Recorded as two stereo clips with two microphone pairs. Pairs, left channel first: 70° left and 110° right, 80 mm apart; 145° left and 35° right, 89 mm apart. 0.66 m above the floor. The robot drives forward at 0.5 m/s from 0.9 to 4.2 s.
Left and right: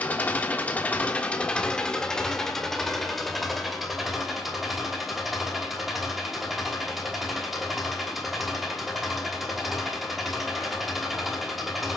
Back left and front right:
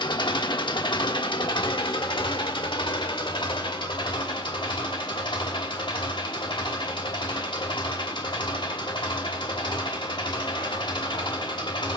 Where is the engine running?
140° left, 1.4 m; by 12.0 s 160° left, 3 m.